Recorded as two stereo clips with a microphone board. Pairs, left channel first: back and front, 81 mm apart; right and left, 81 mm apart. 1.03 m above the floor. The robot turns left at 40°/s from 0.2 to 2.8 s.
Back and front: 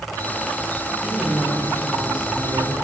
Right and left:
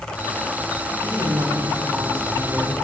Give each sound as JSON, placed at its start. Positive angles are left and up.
{"t": 1.0, "sound": "a woman speaking", "azimuth_deg": 80, "distance_m": 7.0}